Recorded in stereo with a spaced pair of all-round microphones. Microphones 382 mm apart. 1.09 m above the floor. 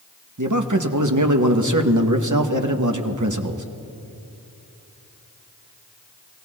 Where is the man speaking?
50° right (ahead or behind), 1.0 m.